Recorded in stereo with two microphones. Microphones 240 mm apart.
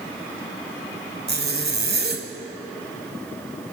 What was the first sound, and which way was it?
A zipper, 40° right (ahead or behind).